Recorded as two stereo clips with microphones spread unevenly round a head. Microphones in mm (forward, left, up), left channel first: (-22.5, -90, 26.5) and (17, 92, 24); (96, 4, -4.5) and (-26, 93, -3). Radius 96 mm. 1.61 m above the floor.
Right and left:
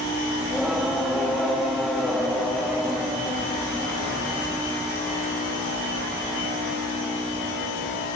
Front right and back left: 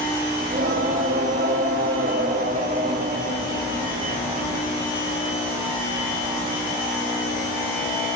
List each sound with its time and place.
0.4 s singing: 170° left, 1.6 m